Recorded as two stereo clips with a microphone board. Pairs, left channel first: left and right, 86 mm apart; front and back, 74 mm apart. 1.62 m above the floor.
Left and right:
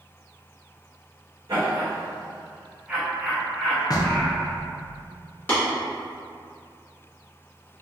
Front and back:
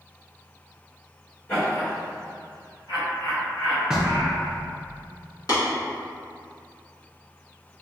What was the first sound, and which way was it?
Laughter, 50° right.